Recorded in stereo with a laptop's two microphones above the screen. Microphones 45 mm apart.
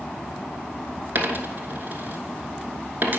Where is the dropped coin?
45° right (ahead or behind), 1.2 m.